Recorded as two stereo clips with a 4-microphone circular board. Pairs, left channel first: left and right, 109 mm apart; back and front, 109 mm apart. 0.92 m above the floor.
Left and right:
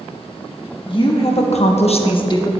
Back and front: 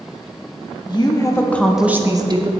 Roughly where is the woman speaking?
Behind left.